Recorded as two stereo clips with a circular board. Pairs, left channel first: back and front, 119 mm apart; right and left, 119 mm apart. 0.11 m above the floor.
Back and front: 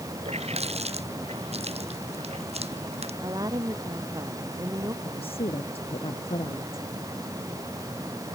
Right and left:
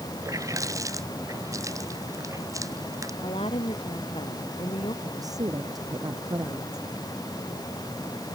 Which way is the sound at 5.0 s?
145° left.